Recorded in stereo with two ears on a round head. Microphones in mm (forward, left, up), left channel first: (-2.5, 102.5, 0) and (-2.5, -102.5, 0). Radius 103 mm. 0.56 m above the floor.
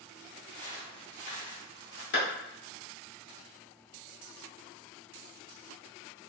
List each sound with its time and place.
0.5 s footsteps: 5° left (ahead or behind), 1.1 m; by 2.0 s 50° left (ahead or behind), 2.0 m
2.1 s a clap: 50° left (ahead or behind), 1.4 m